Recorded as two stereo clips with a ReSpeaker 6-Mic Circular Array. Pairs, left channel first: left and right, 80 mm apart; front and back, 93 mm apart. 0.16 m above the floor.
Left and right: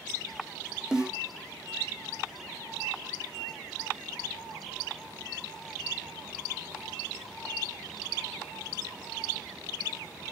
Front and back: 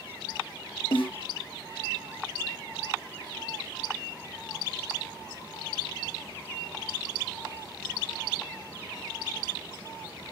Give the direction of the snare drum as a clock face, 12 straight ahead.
12 o'clock.